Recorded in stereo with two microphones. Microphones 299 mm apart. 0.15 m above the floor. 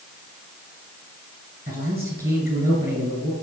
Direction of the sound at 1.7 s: 30° right (ahead or behind).